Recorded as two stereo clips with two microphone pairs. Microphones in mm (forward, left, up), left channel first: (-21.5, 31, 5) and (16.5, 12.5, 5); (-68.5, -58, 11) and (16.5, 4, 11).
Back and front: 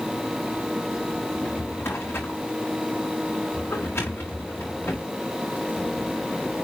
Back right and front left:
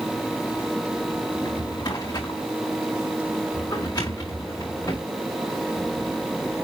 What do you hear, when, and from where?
1.3 s a drawer: 165° left, 5 m